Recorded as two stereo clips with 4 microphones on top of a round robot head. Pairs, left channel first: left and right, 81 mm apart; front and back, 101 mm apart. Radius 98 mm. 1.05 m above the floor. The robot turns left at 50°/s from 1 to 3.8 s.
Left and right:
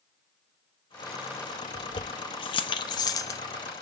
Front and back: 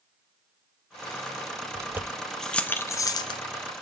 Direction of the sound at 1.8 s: 120° left.